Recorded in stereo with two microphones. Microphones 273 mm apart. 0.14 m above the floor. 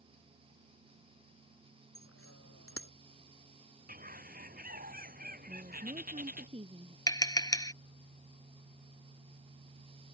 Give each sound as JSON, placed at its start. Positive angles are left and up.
{"t": 1.9, "sound": "a bicycle bell", "side_deg": 55}
{"t": 3.9, "sound": "a bird", "side_deg": -30}
{"t": 5.5, "sound": "a woman speaking", "side_deg": -20}
{"t": 7.1, "sound": "tapping", "side_deg": 15}